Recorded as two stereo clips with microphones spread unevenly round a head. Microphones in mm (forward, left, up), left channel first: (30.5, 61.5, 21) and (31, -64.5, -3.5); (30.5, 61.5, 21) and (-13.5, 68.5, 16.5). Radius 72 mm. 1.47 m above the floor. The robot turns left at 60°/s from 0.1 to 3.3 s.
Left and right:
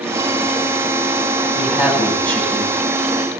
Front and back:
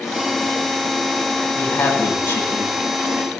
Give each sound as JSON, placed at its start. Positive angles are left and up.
{"t": 1.6, "sound": "a woman speaking", "azimuth_deg": 5, "distance_m": 9.0}